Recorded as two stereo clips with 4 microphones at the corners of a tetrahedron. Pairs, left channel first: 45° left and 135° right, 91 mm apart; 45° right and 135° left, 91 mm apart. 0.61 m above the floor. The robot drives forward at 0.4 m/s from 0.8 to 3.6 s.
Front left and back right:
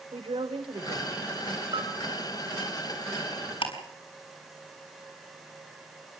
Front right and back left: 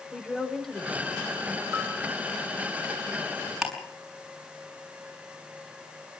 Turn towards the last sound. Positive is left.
turn(degrees=50)